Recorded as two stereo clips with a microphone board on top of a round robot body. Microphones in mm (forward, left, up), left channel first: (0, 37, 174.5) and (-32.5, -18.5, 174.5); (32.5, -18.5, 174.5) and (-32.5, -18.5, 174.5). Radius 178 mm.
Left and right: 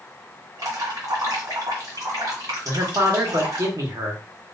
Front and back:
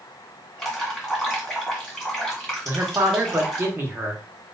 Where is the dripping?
85° right, 2 m.